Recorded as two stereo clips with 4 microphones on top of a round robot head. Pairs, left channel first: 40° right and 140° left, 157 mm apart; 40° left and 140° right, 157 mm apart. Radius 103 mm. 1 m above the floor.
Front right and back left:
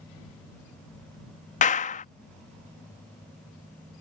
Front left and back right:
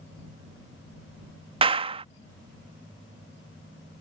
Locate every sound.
1.6 s a clap: 85° right